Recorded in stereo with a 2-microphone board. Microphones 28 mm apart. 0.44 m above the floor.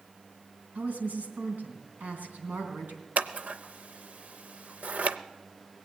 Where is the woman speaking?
75° right (ahead or behind), 3 m.